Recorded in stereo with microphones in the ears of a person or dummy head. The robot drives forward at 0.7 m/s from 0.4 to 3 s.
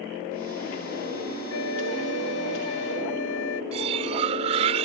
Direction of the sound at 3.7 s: 30° right (ahead or behind).